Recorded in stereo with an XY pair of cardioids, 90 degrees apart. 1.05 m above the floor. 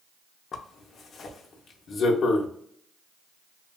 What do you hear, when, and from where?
0.5 s a zipper: 60° left, 0.7 m